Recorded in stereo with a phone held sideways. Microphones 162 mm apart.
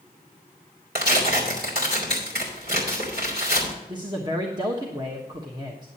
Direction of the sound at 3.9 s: 25° right (ahead or behind).